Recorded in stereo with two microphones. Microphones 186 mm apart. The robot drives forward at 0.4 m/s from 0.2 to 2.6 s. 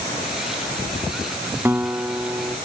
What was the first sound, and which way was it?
A guitar, 10° right (ahead or behind).